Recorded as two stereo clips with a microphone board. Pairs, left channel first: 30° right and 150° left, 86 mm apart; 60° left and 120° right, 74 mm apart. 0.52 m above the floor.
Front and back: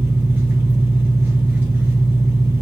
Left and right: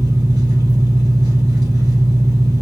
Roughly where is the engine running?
Behind right.